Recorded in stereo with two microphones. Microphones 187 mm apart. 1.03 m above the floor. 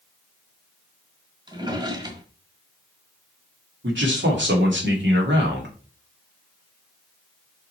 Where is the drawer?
25° right (ahead or behind), 1.5 m.